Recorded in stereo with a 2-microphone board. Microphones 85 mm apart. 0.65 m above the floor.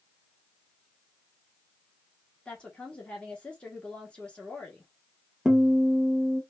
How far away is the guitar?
About 0.7 m.